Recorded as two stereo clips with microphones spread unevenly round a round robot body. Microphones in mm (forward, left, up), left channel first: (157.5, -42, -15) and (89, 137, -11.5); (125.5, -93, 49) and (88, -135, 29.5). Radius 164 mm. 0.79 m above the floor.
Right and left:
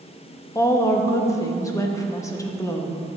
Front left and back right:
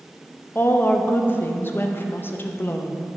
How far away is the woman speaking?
About 0.9 m.